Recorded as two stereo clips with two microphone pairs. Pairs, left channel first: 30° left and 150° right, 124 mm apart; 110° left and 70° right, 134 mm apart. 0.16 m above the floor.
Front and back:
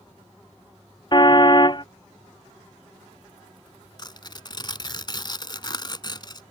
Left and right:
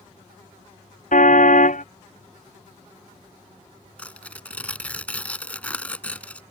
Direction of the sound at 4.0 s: 40° left.